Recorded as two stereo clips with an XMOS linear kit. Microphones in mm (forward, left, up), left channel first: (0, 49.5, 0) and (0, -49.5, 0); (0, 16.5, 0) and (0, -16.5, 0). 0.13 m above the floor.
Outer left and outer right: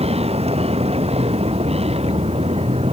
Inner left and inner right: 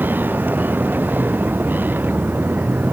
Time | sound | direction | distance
0.0 | a vehicle | 80° right | ?